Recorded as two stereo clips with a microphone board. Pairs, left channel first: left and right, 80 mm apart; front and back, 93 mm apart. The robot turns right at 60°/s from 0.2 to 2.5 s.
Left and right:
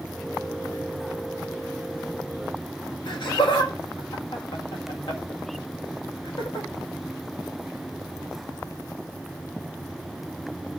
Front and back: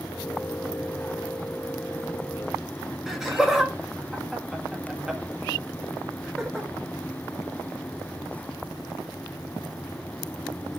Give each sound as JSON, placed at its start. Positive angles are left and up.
{"t": 3.1, "sound": "laughter", "azimuth_deg": 95, "distance_m": 1.8}